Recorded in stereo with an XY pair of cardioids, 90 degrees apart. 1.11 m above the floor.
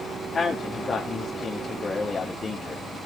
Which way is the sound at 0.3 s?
45° left.